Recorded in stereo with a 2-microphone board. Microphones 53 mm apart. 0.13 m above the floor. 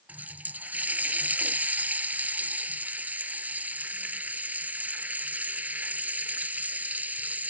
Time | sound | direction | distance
0.1 | a running tap | 30° right (ahead or behind) | ?